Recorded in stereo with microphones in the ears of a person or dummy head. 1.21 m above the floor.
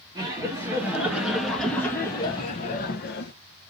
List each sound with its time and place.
0.1 s laughter: 20° right (ahead or behind), 2 m; by 3.3 s 55° left (ahead or behind), 1.2 m